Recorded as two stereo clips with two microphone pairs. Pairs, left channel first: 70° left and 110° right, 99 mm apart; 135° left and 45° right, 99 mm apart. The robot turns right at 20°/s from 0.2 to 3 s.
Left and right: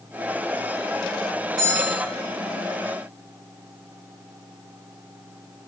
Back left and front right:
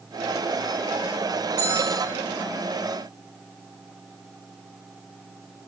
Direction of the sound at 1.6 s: 150° right.